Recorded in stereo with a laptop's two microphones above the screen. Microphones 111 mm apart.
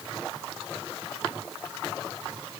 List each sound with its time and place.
Only background noise.